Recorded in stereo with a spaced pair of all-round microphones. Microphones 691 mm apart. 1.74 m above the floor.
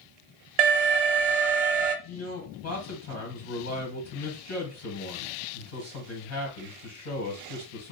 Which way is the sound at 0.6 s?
60° right (ahead or behind).